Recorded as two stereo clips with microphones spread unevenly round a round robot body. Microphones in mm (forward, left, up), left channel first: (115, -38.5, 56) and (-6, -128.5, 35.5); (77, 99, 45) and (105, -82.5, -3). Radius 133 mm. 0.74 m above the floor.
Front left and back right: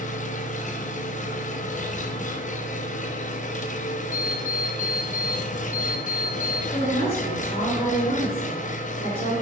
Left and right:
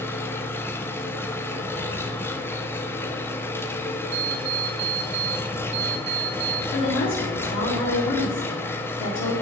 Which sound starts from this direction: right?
An alarm clock, at 4.1 s.